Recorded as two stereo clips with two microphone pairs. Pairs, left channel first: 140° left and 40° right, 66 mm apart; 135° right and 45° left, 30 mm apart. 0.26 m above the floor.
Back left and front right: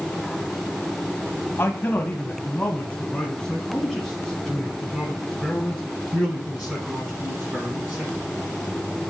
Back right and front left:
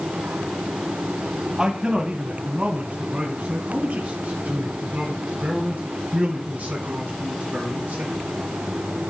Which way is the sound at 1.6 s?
100° left.